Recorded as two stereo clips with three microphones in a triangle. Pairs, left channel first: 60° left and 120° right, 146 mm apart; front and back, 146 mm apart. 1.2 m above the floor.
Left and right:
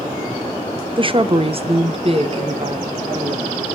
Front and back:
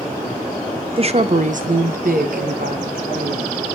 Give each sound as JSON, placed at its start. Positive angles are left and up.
{"t": 1.0, "sound": "a woman speaking", "azimuth_deg": -155, "distance_m": 0.6}